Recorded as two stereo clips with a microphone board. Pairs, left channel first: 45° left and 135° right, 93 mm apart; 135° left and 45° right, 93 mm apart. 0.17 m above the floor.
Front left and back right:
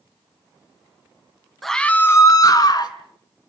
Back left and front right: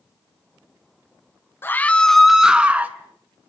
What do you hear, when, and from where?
1.6 s a scream: 130° left, 1.1 m; by 3.0 s 20° left, 1.7 m